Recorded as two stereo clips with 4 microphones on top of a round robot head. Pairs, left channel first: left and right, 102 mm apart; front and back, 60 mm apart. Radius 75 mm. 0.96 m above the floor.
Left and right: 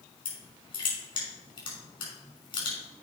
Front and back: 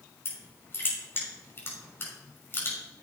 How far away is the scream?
No scream in this recording.